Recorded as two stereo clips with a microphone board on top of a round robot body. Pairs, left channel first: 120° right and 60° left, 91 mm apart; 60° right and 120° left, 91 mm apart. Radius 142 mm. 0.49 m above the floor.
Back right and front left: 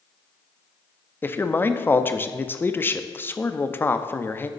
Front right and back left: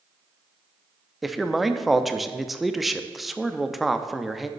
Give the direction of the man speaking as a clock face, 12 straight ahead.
5 o'clock.